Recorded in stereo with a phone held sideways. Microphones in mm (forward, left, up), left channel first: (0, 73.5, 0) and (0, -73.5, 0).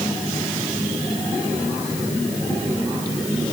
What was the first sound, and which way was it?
Only background noise.